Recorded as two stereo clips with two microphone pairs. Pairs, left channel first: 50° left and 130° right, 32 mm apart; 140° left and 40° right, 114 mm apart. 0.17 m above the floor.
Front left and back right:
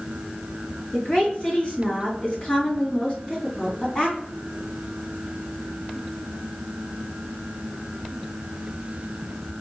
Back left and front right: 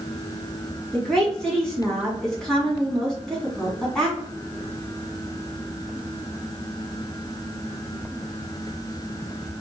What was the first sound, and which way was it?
A woman speaking, 60° left.